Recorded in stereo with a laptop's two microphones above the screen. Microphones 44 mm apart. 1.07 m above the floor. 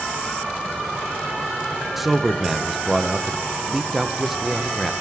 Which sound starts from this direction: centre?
A man speaking, at 2.0 s.